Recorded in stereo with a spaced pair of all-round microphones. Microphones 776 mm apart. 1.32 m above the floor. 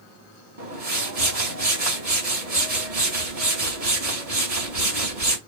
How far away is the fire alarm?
No fire alarm in this recording.